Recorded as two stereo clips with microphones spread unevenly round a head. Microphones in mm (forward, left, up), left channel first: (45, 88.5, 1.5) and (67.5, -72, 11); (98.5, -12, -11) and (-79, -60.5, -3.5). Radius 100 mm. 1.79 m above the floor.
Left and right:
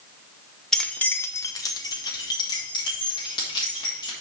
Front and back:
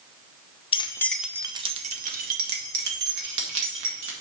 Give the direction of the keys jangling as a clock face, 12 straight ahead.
12 o'clock.